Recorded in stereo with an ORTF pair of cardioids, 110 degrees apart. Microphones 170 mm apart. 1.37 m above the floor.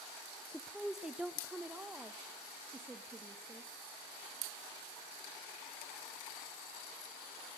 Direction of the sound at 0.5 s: 5° left.